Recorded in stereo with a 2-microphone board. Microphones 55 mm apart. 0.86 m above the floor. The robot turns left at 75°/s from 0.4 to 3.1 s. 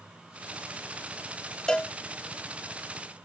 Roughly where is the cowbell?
Centre.